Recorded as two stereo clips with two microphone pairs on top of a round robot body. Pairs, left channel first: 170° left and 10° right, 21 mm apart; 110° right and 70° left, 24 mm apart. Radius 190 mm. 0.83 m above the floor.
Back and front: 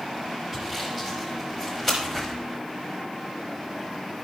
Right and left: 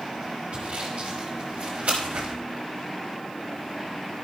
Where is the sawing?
100° left, 0.9 m.